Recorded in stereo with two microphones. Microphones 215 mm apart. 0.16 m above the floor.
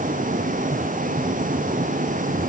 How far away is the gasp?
I don't hear a gasp.